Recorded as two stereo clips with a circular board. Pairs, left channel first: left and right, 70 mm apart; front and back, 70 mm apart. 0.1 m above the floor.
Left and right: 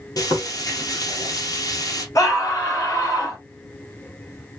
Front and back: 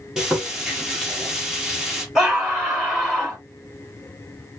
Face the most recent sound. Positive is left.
turn(degrees=105)